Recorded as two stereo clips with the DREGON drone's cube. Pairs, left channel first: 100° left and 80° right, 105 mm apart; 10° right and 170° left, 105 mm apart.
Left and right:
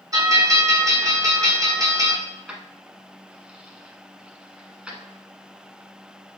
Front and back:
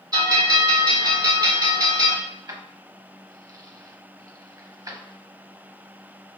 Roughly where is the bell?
Behind right.